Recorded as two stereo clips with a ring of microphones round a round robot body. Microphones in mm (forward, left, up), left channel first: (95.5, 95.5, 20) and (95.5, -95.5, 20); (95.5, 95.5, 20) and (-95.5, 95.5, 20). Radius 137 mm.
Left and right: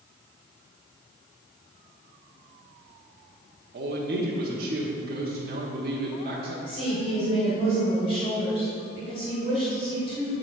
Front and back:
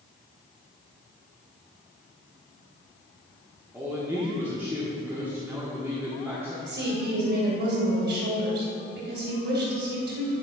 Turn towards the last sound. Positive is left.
turn(degrees=155)